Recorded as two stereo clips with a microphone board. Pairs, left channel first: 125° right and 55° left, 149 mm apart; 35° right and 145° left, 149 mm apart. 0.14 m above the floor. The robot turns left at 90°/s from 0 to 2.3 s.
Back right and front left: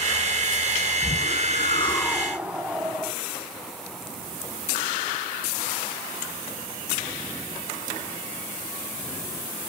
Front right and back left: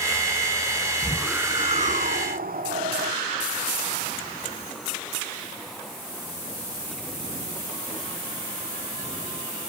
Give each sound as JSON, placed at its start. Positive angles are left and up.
{"t": 1.0, "sound": "a whoosh", "azimuth_deg": -105, "distance_m": 1.3}